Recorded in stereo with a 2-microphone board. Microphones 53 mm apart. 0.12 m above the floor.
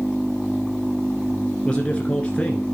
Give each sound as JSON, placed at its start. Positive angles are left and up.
{"t": 1.6, "sound": "a man speaking", "side_deg": 20, "distance_m": 1.5}